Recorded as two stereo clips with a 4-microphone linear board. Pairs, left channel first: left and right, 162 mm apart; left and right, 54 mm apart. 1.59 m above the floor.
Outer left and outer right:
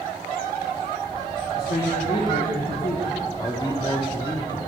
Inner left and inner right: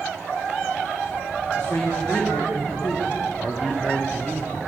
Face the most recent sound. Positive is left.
turn(degrees=25)  # may be behind; listen again after turning